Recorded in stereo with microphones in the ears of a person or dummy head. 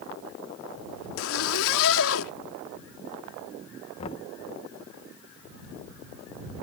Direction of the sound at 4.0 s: 30° left (ahead or behind).